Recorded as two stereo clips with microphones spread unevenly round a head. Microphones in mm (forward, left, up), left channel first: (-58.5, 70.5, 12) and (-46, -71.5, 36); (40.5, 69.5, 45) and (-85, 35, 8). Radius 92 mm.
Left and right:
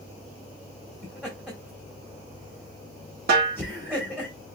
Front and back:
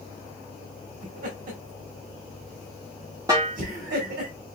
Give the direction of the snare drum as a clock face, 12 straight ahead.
3 o'clock.